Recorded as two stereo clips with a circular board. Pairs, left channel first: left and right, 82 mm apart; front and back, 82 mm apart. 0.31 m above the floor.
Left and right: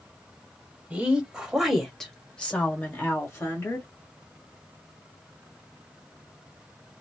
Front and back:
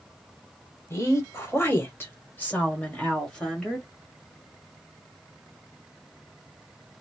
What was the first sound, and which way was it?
A woman speaking, 25° right.